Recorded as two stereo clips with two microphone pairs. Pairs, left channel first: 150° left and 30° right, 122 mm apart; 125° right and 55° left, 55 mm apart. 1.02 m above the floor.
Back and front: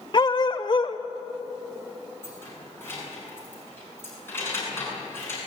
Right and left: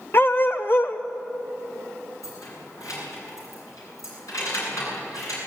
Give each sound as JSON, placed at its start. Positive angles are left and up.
{"t": 0.1, "sound": "a dog barking", "azimuth_deg": -165, "distance_m": 1.2}
{"t": 2.2, "sound": "keys jangling", "azimuth_deg": -140, "distance_m": 8.0}